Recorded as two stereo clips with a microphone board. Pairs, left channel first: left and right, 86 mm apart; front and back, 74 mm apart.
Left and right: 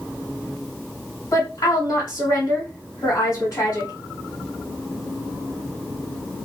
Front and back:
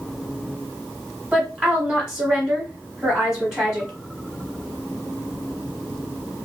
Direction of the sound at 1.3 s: 110° left.